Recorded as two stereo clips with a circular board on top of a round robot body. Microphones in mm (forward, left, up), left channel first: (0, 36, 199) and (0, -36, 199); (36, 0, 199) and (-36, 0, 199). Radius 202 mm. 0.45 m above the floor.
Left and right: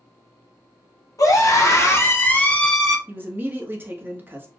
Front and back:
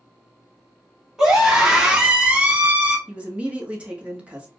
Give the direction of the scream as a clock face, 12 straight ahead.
9 o'clock.